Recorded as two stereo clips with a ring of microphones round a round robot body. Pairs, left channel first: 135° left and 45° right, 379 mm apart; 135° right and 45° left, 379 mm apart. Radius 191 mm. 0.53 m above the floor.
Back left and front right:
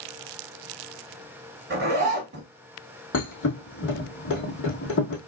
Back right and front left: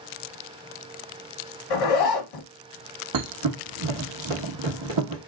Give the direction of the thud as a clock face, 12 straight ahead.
9 o'clock.